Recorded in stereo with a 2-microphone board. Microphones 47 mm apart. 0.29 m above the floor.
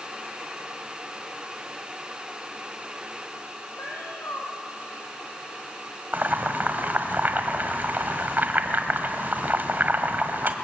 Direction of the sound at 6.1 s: 45° right (ahead or behind).